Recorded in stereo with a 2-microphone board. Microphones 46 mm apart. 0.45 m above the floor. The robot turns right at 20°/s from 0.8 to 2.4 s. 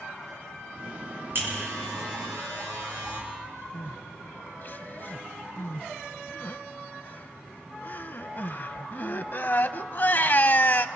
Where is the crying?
45° left (ahead or behind), 0.6 m.